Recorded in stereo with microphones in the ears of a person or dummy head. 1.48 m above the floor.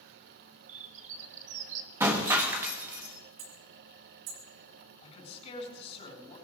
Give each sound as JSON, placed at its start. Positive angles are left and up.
{"t": 0.7, "sound": "a bird", "side_deg": -40, "distance_m": 1.8}
{"t": 2.0, "sound": "breaking glass", "side_deg": -15, "distance_m": 1.2}
{"t": 3.4, "sound": "hammering", "side_deg": -60, "distance_m": 1.8}
{"t": 5.0, "sound": "a man speaking", "side_deg": 35, "distance_m": 7.5}